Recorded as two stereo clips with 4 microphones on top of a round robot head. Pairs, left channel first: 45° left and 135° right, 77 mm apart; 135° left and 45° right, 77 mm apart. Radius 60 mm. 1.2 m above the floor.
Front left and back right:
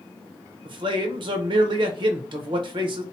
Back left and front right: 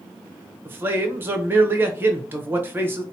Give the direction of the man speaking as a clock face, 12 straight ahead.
4 o'clock.